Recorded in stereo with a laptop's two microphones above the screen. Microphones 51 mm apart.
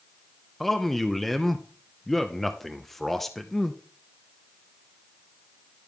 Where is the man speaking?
Centre (ahead or behind), 0.7 m.